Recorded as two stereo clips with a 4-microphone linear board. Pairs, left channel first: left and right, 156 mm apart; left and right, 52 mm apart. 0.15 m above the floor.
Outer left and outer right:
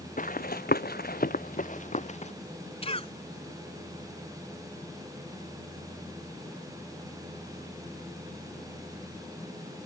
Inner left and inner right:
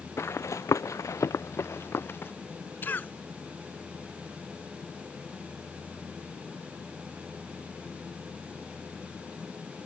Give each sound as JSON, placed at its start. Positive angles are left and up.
{"t": 0.2, "sound": "running footsteps", "side_deg": 60}
{"t": 2.8, "sound": "a cough", "side_deg": 40}